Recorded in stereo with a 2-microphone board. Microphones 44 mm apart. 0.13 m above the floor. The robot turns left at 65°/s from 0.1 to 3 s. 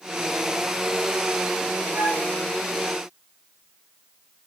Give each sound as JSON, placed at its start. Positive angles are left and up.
{"t": 1.9, "sound": "a flute", "side_deg": -75, "distance_m": 4.5}